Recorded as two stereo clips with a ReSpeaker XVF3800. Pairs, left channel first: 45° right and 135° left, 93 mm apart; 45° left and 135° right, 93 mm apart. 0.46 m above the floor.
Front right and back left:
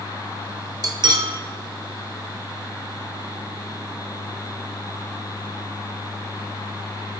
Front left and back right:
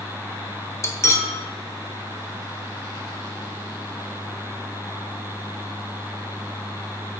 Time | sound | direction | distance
0.8 | cutlery clinking | 100° left | 0.6 m